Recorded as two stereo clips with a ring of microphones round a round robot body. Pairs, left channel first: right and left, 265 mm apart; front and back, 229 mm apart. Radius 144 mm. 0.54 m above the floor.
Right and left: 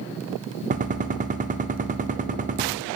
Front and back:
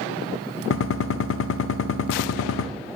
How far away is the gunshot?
About 0.6 m.